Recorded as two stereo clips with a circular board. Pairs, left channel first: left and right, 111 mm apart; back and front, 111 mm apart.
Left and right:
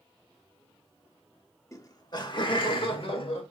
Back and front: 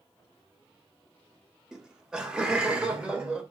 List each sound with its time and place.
1.7 s laughter: 80° left, 0.8 m